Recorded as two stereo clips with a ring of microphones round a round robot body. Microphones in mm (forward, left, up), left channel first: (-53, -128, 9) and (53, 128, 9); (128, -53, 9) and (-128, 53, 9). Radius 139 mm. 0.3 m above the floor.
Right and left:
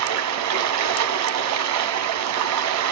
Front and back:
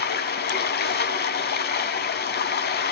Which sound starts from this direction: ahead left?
Running water, at 0.0 s.